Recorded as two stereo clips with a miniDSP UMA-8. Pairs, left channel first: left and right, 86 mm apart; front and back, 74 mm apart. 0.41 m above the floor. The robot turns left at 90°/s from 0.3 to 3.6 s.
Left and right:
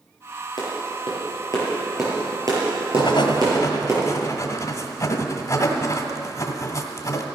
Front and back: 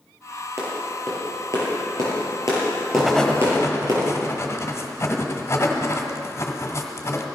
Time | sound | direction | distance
0.6 | a clap | 130° left | 6.5 m
3.0 | writing | 105° left | 1.7 m